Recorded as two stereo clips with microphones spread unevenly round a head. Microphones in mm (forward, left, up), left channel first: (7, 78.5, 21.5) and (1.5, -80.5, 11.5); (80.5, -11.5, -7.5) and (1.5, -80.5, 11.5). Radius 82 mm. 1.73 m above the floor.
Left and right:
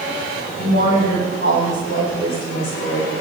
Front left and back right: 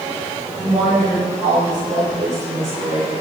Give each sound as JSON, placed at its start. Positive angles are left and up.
{"t": 0.6, "sound": "a woman speaking", "azimuth_deg": 135, "distance_m": 8.5}